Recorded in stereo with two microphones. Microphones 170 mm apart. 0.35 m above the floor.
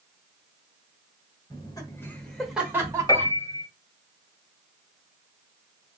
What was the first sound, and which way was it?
Laughter, 25° left (ahead or behind).